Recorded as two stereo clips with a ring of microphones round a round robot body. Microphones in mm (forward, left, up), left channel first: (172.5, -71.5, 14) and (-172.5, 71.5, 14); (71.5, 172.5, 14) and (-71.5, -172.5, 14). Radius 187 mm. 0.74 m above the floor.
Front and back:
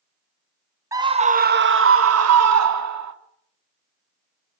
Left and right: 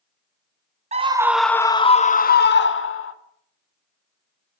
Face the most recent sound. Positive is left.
turn(degrees=120)